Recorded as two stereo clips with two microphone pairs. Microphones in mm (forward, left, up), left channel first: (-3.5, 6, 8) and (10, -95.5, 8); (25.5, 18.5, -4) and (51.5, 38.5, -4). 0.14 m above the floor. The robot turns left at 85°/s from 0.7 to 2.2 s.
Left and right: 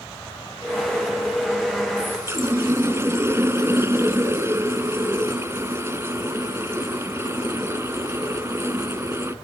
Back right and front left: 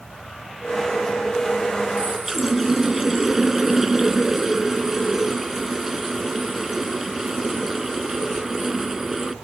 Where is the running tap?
15° right, 1.0 m; by 9.3 s 35° right, 1.0 m.